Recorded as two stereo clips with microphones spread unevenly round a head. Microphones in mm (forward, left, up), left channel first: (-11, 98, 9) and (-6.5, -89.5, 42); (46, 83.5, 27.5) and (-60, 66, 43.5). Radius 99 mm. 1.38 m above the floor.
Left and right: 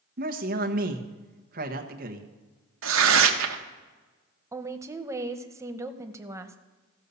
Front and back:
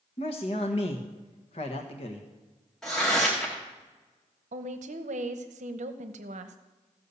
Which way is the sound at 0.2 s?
40° right.